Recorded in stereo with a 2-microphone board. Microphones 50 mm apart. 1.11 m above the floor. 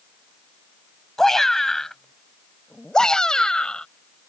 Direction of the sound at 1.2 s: 5° left (ahead or behind).